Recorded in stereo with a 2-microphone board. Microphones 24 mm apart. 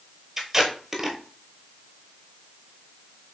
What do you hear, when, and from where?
0.4 s tape being pulled: 15° right (ahead or behind), 1.0 m